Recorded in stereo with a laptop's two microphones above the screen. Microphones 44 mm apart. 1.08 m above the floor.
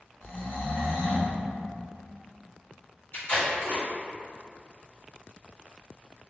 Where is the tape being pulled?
70° left (ahead or behind), 1.7 m.